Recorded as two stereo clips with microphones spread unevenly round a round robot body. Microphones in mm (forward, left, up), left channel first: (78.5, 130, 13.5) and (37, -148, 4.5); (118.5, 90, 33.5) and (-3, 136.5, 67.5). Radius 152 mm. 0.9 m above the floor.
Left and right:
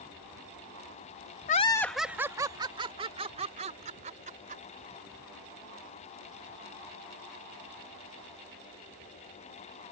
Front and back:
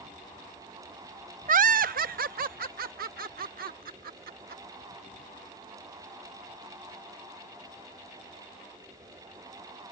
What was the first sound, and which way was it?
Laughter, 140° left.